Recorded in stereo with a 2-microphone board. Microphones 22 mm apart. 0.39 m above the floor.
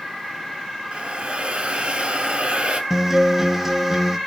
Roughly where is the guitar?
Centre.